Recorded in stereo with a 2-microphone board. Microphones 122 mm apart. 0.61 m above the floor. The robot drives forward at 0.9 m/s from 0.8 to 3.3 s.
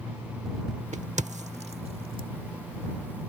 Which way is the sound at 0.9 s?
70° right (ahead or behind).